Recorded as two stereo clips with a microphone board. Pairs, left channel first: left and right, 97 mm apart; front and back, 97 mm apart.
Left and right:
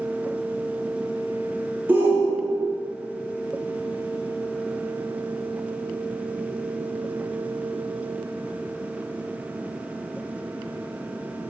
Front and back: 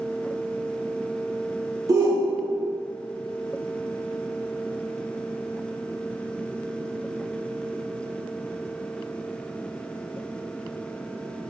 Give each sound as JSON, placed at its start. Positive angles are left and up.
{"t": 1.9, "sound": "a shout", "azimuth_deg": -150, "distance_m": 0.5}